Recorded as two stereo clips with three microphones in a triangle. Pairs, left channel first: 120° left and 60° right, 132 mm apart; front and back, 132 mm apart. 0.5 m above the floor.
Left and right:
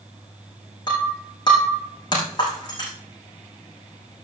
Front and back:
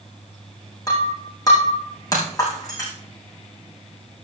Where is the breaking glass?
65° left, 6 m.